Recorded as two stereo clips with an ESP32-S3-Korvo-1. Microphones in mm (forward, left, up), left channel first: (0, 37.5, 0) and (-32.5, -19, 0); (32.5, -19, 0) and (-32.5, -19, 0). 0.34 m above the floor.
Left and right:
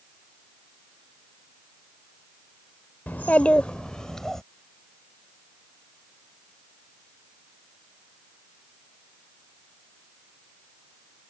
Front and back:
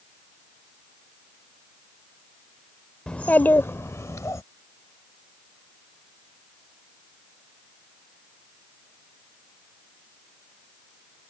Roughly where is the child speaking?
Ahead left.